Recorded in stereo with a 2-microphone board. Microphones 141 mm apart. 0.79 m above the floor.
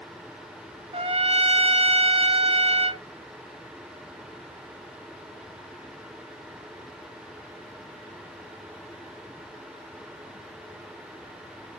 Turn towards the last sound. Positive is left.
turn(degrees=-45)  # may be behind; listen again after turning